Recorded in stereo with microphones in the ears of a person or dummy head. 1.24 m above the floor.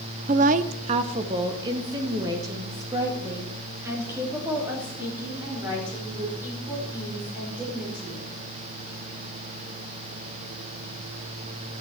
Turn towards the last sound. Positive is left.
turn(degrees=-15)  # may be behind; listen again after turning